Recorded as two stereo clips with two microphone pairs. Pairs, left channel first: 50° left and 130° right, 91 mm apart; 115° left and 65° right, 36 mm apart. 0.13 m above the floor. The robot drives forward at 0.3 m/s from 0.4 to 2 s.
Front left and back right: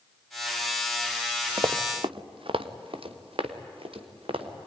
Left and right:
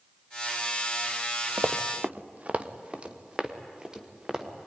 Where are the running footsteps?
85° right, 1.0 m; by 4.7 s 135° right, 3 m.